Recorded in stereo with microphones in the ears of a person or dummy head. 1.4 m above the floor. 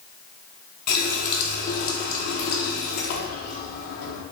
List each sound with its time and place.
0.9 s a running tap: 50° left (ahead or behind), 0.9 m